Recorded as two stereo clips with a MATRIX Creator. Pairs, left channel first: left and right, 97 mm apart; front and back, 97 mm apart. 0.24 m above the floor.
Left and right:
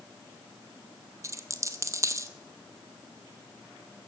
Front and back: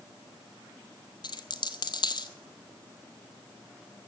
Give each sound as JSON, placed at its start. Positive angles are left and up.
{"t": 1.2, "sound": "a dropped coin", "azimuth_deg": -35, "distance_m": 0.7}